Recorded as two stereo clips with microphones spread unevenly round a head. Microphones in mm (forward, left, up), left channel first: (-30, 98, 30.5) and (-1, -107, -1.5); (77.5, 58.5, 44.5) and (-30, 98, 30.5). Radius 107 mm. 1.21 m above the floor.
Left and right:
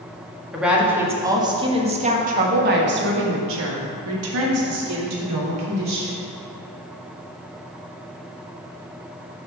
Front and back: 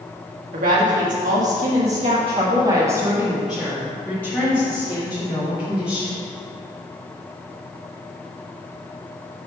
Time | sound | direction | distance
0.5 | a woman speaking | 170° right | 1.7 m